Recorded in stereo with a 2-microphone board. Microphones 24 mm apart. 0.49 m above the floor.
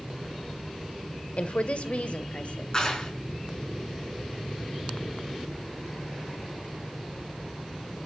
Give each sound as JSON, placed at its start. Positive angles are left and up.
{"t": 1.4, "sound": "a woman speaking", "side_deg": 55, "distance_m": 1.6}
{"t": 2.7, "sound": "a clap", "side_deg": 30, "distance_m": 4.5}